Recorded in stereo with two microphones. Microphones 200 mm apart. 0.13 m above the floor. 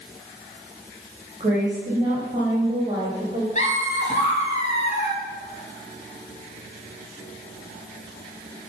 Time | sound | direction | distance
1.4 | a woman speaking | 30° right (ahead or behind) | 4.5 m
3.5 | laughter | 35° left (ahead or behind) | 1.9 m